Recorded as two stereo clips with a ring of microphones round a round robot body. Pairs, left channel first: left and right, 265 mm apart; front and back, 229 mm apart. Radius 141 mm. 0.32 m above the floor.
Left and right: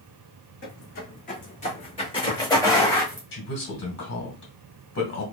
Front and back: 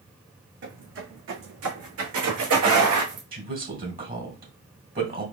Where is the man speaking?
135° left, 2 m.